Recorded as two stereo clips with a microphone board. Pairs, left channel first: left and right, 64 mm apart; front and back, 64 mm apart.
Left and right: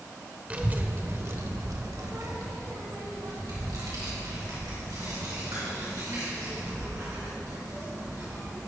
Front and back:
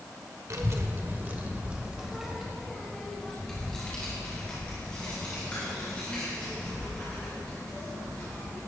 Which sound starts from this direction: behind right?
A child speaking, at 0.5 s.